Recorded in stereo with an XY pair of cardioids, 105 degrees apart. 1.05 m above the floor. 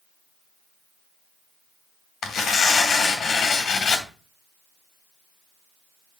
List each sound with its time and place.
2.2 s tearing paper: 65° left, 2.5 m